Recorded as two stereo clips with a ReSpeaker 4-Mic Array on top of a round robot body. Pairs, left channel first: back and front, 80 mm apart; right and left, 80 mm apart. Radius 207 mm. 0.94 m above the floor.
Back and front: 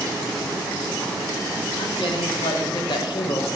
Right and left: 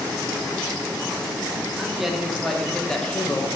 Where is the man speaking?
175° left, 2 m; by 3.5 s 155° right, 1.1 m.